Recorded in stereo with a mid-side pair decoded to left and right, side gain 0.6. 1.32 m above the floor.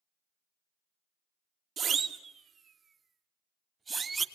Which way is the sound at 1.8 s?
45° right.